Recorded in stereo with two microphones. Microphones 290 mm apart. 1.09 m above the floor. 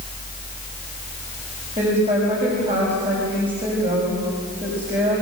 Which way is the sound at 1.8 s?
25° right (ahead or behind).